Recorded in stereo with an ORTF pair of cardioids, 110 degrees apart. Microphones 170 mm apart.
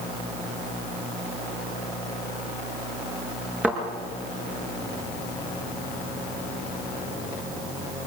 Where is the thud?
10° right, 6.5 m.